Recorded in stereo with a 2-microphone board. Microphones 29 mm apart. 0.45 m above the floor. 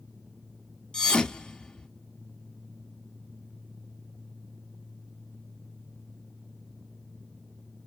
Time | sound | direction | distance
0.9 | a thud | 30° left (ahead or behind) | 0.6 m